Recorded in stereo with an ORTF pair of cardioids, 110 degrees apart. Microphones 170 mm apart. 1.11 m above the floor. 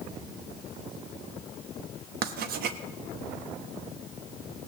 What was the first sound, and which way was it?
Writing, 65° right.